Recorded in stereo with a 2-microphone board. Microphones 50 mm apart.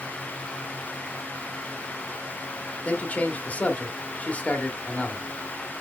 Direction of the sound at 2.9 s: 30° left (ahead or behind).